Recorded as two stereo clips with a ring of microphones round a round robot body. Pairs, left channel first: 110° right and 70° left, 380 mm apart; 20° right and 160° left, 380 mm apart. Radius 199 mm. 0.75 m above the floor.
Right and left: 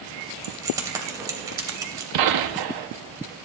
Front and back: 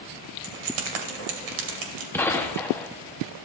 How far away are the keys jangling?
About 2.5 m.